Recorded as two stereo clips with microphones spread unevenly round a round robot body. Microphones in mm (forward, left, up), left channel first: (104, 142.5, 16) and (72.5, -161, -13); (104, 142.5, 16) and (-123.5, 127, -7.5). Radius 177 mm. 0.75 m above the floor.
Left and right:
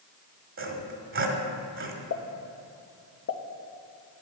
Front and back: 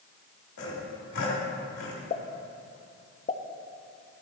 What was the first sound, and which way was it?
Sawing, 45° right.